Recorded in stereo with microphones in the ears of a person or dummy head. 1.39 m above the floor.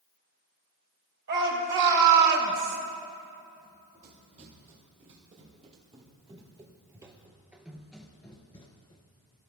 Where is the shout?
60° right (ahead or behind), 5 m; by 2.8 s 50° right (ahead or behind), 3 m.